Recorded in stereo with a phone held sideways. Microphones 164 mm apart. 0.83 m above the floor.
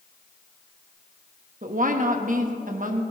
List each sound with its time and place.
1.6 s a woman speaking: 55° right (ahead or behind), 1.1 m